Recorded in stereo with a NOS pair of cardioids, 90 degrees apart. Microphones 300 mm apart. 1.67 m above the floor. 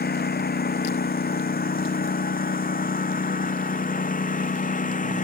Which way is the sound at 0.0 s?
30° left.